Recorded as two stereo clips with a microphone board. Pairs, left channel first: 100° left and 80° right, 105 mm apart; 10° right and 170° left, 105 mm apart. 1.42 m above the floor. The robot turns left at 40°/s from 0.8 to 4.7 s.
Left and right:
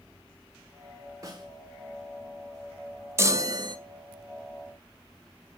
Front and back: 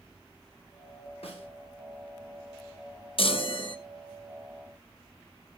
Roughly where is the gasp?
I don't hear a gasp.